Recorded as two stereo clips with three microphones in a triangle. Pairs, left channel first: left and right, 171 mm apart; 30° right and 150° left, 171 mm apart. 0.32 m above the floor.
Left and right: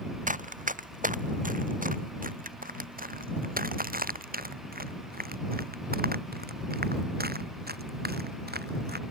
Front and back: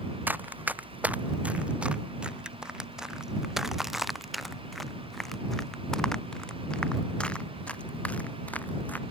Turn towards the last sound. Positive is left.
turn(degrees=-110)